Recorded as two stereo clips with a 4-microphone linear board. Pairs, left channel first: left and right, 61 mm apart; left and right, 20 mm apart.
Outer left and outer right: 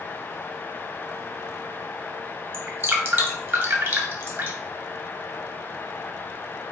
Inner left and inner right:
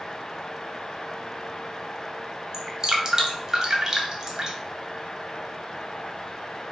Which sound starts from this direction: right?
Dripping, at 2.5 s.